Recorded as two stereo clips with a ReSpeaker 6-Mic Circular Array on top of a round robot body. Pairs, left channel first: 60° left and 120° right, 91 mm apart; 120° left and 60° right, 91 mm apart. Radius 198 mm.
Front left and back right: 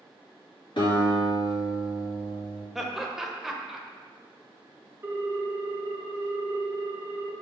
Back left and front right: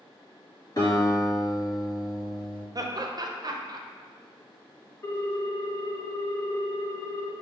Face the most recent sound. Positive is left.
turn(degrees=175)